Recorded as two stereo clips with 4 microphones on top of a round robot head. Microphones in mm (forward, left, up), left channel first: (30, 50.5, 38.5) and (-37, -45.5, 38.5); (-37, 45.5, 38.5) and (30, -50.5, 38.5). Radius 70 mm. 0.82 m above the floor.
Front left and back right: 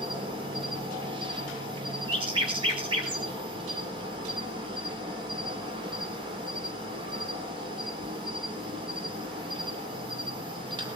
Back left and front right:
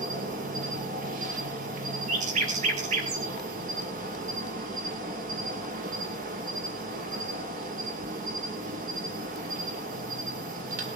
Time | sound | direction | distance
0.0 | an insect | 70° right | 2.5 m
2.1 | a bird | 75° right | 5 m